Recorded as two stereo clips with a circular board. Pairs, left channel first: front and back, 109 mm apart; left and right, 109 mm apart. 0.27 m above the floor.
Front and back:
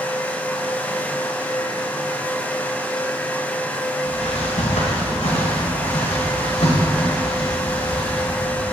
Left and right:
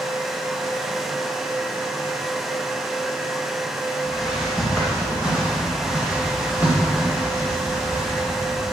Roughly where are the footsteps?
Ahead.